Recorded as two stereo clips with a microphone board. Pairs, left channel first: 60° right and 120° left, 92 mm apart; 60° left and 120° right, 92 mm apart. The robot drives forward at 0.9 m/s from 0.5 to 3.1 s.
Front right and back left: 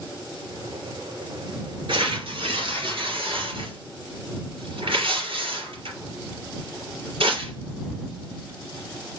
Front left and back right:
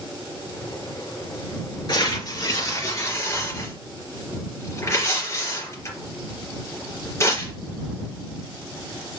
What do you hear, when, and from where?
1.9 s tearing paper: 100° left, 3 m; by 7.5 s 120° left, 3 m